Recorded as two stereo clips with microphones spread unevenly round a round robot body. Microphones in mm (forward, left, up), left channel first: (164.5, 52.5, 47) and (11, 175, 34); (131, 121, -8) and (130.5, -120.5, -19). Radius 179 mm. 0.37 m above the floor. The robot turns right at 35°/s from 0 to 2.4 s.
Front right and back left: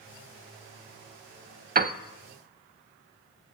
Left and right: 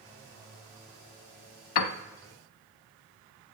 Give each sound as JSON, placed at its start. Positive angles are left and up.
{"t": 1.8, "sound": "a piano", "azimuth_deg": 90, "distance_m": 0.6}